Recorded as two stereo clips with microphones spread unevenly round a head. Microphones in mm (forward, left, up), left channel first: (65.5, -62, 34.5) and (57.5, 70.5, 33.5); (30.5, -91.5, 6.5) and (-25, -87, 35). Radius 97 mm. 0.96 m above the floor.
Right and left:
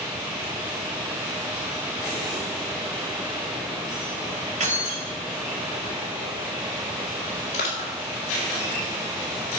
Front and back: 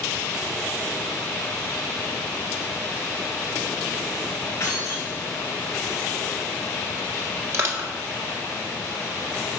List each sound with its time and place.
4.6 s keys jangling: 60° left, 3 m
7.5 s crushing: 135° right, 1.8 m